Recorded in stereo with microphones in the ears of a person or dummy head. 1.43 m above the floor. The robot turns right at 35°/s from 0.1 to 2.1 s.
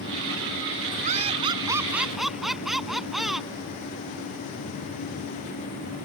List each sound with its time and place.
1.0 s laughter: 40° right; by 3.5 s straight ahead